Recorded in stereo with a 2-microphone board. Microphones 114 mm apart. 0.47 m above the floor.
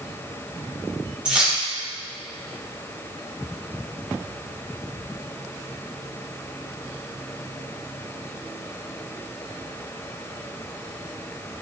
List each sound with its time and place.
1.2 s keys jangling: 10° right (ahead or behind), 1.7 m